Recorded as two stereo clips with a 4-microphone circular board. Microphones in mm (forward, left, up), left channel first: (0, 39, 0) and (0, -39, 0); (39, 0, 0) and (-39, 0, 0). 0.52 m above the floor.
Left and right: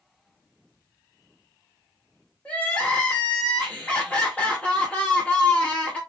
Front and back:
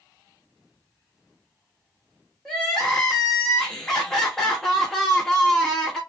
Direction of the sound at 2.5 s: 65° left.